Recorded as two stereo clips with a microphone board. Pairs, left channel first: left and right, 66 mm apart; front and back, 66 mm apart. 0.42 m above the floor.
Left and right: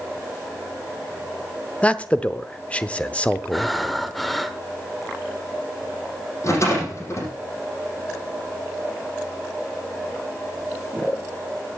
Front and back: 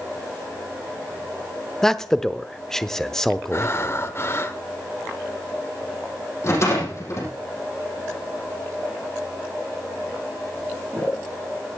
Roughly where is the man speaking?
Left.